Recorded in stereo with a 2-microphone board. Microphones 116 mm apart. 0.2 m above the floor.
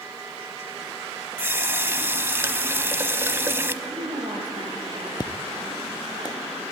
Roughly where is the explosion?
Left.